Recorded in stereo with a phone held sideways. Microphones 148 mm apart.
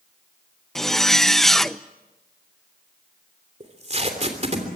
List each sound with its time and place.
0.8 s a zipper: centre (ahead or behind), 0.6 m
3.6 s tape being pulled: 45° right (ahead or behind), 3 m